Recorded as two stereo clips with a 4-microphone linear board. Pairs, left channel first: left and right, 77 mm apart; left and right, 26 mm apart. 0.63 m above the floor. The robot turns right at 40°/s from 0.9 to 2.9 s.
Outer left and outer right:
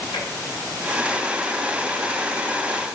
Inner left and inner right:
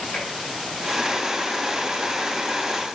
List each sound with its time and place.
0.1 s tapping: 80° left, 4 m